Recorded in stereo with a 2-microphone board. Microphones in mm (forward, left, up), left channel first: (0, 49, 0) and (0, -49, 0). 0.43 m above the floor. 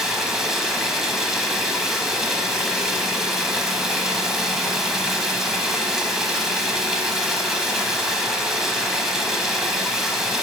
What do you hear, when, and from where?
0.0 s running water: 5° right (ahead or behind), 1.0 m